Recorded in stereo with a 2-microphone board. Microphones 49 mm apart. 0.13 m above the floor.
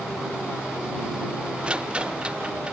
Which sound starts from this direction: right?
A rattle, at 1.6 s.